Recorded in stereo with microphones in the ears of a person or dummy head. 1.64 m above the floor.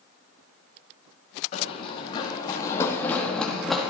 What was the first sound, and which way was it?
Running footsteps, 35° left (ahead or behind).